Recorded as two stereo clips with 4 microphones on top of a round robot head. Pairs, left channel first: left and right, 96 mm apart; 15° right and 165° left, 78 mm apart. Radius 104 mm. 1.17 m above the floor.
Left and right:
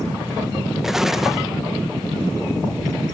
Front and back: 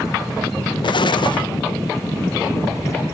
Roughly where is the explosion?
Ahead.